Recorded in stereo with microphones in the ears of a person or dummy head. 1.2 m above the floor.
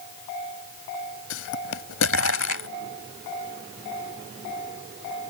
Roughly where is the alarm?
No alarm in this recording.